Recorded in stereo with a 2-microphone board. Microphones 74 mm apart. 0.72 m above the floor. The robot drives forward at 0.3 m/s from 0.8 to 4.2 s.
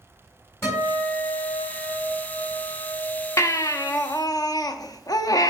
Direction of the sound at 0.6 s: 35° left (ahead or behind).